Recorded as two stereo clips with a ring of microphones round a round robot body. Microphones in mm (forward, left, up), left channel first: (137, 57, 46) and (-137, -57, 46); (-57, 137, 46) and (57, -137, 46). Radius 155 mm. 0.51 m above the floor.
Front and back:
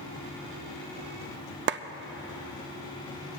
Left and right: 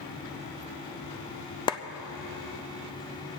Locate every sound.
1.7 s a clap: straight behind, 0.5 m